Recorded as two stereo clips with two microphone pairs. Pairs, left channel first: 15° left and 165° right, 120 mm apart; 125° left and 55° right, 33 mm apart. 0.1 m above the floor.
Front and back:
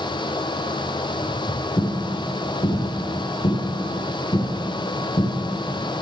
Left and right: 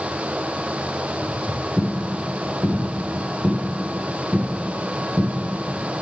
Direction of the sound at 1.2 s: 55° left.